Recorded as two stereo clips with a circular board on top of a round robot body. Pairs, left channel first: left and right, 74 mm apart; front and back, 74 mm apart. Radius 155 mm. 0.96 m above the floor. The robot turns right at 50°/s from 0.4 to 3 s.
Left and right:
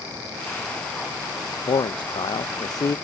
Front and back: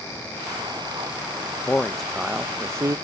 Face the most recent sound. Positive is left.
turn(degrees=135)